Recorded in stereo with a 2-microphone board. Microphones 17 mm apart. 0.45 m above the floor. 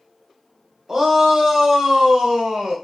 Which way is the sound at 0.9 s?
30° right (ahead or behind).